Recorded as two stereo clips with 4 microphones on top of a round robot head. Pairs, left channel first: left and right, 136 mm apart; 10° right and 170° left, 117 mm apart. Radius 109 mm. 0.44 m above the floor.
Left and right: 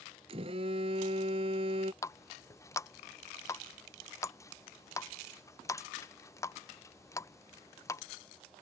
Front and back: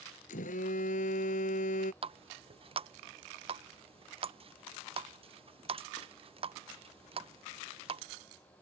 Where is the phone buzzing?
30° right.